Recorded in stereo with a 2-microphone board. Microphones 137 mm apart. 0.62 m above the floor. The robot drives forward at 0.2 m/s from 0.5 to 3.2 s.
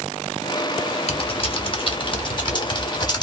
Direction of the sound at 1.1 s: 45° left (ahead or behind).